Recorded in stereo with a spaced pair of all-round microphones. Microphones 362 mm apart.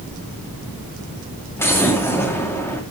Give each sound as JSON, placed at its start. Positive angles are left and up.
{"t": 1.6, "sound": "an explosion", "side_deg": 5, "distance_m": 2.0}